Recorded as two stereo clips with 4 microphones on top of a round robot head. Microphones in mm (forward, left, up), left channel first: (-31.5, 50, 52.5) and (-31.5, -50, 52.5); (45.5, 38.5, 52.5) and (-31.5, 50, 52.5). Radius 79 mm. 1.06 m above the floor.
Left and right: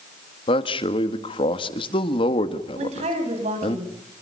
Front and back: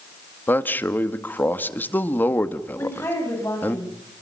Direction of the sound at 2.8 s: 80° right.